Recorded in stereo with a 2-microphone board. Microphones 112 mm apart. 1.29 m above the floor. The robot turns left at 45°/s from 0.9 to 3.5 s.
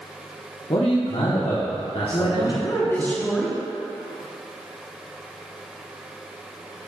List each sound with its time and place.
0.7 s a man speaking: 110° left, 0.9 m; by 3.1 s 10° left, 0.9 m
2.1 s a woman speaking: 60° left, 1.1 m; by 3.6 s 5° right, 1.1 m